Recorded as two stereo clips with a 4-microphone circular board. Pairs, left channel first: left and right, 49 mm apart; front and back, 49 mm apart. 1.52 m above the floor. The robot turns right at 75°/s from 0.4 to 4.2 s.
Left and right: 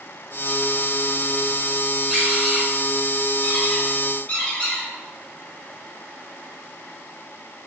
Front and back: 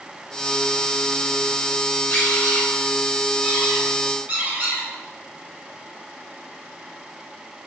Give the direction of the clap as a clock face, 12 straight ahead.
I don't hear a clap.